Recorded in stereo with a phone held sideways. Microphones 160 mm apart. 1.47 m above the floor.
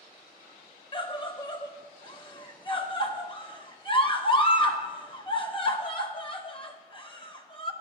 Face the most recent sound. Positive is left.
turn(degrees=30)  # may be behind; listen again after turning